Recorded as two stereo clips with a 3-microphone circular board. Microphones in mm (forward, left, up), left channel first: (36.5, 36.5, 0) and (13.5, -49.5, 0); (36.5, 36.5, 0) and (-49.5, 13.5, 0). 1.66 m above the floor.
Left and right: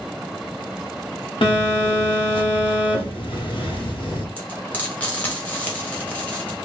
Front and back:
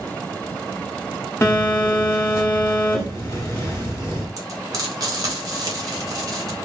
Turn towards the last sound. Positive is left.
turn(degrees=150)